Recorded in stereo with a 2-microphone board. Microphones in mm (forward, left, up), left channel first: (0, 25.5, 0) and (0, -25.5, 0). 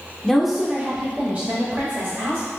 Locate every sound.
0.2 s a woman speaking: 10° left (ahead or behind), 0.8 m; by 2.5 s 55° right (ahead or behind), 1.7 m